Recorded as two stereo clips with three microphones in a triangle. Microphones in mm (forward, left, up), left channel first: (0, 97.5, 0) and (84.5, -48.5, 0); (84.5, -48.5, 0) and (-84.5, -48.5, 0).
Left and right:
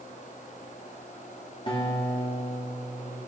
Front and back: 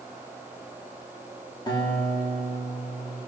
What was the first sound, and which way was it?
A guitar, 65° left.